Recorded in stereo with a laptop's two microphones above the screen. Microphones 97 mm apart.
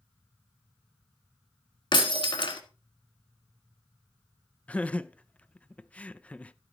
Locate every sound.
1.9 s breaking glass: 60° left (ahead or behind), 1.6 m
4.7 s laughter: 15° left (ahead or behind), 0.5 m